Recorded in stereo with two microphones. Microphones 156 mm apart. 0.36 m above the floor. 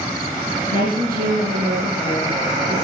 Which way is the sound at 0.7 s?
70° right (ahead or behind).